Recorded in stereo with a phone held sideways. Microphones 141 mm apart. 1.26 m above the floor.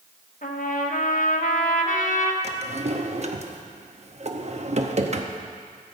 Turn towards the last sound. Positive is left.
turn(degrees=-50)  # may be behind; listen again after turning